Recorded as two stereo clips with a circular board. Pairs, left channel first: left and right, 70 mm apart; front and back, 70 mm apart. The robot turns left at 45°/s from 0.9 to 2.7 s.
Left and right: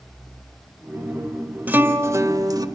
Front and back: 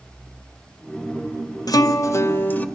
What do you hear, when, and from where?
1.7 s a guitar: 25° right, 1.1 m; by 2.6 s 65° right, 1.1 m